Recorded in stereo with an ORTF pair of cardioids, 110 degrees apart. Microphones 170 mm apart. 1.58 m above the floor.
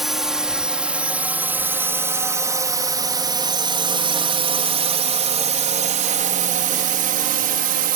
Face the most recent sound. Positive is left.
turn(degrees=-65)